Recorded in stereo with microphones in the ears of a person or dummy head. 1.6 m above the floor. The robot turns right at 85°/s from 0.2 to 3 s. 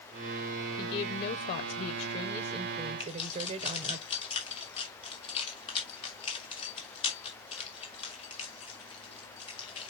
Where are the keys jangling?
35° left (ahead or behind), 3 m.